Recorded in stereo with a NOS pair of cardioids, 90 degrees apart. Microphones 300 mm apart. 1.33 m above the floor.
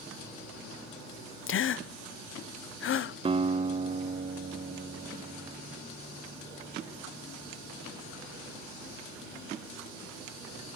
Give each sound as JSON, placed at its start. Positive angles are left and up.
{"t": 1.5, "sound": "a gasp", "azimuth_deg": 45, "distance_m": 0.6}
{"t": 3.2, "sound": "a guitar", "azimuth_deg": -20, "distance_m": 0.7}